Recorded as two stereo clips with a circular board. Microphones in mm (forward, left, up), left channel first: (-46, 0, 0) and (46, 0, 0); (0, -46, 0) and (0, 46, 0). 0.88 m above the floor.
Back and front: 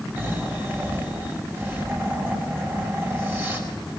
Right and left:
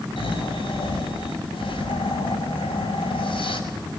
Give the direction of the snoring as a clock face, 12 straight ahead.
2 o'clock.